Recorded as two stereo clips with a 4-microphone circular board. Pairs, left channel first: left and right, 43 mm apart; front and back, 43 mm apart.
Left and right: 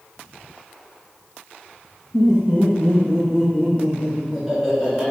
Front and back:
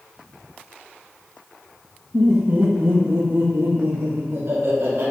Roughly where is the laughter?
Behind right.